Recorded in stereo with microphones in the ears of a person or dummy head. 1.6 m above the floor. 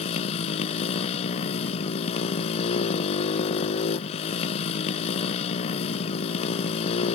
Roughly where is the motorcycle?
Left.